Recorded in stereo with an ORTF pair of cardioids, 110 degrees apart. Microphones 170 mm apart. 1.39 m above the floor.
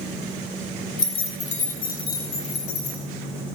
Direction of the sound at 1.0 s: 25° left.